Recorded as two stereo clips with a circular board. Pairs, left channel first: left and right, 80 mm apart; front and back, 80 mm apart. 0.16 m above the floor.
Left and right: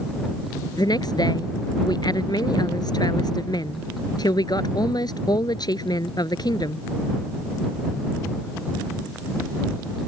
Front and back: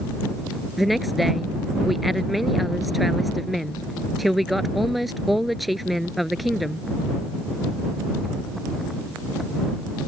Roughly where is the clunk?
I don't hear a clunk.